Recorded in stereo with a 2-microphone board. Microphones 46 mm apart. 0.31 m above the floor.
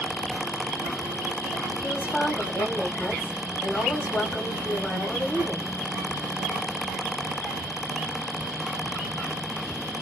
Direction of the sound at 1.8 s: 50° left (ahead or behind).